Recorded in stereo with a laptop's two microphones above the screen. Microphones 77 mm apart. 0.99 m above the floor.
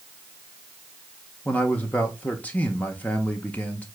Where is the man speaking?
20° left (ahead or behind), 0.7 m.